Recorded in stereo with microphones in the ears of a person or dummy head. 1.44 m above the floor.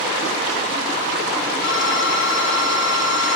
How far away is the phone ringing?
About 3 m.